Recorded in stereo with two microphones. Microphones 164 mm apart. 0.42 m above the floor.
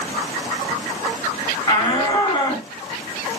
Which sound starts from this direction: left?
A shout, at 1.7 s.